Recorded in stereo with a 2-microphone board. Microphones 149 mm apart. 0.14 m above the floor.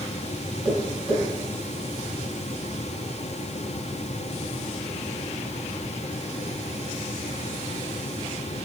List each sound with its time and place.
0.7 s tapping: 5° right (ahead or behind), 2.0 m